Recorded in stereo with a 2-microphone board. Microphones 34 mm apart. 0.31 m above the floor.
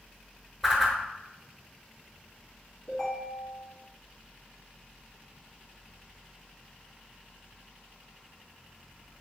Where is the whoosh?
5° right (ahead or behind), 0.6 m.